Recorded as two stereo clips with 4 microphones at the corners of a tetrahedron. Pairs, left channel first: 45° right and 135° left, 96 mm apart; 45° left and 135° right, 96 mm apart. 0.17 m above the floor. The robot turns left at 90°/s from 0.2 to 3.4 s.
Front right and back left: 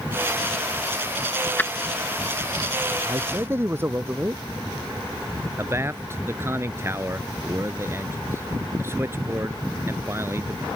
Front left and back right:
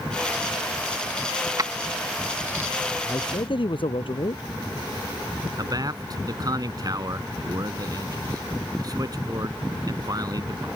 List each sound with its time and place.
1.6 s keys jangling: 105° right; by 2.7 s 155° left
3.0 s a man speaking: 105° left; by 4.4 s 70° left
5.6 s a man speaking: 170° right